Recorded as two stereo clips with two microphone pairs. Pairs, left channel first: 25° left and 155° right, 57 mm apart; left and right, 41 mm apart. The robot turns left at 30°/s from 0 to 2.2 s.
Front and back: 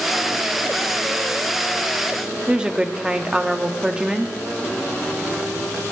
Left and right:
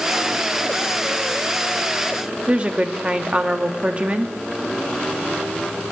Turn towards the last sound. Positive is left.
turn(degrees=-90)